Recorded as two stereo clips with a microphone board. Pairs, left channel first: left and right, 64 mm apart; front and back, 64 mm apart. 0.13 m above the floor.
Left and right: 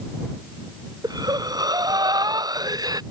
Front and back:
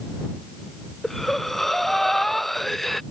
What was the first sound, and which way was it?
Breathing, 85° right.